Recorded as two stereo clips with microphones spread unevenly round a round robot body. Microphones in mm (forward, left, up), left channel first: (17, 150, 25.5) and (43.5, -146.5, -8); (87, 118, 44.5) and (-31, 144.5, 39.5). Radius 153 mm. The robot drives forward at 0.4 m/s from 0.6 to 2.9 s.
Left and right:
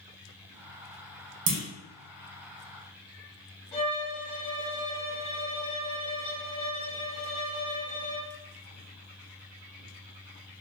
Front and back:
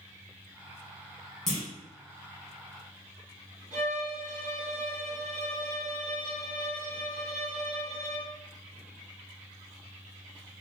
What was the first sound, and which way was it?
A clunk, 100° right.